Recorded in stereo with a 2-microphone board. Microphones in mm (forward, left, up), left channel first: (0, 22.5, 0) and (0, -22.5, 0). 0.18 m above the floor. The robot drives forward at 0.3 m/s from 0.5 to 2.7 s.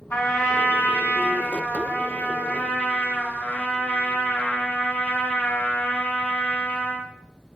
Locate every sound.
0.1 s a trumpet: 40° left (ahead or behind), 1.6 m; by 7.1 s 35° left (ahead or behind), 1.7 m